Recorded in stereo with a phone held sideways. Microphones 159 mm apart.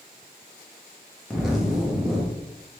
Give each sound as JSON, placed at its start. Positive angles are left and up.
{"t": 1.3, "sound": "a zipper", "side_deg": -5, "distance_m": 1.1}